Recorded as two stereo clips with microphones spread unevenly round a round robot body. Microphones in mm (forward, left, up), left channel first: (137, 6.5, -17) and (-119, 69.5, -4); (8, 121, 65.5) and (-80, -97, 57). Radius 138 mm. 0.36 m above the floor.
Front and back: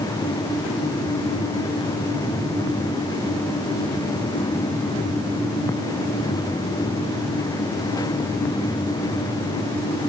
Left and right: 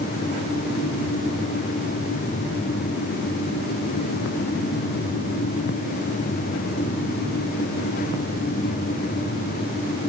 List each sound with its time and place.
Only background noise.